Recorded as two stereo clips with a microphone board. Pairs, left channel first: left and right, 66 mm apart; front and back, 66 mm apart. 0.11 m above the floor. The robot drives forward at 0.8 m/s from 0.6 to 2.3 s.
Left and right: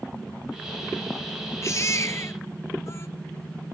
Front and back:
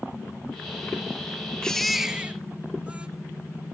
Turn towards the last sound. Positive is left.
turn(degrees=120)